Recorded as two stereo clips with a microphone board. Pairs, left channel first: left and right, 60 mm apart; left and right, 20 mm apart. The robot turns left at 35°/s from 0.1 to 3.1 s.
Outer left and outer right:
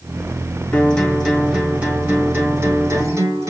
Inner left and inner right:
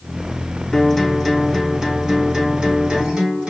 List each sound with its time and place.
0.7 s a guitar: 15° left, 2.5 m; by 3.5 s 70° right, 2.5 m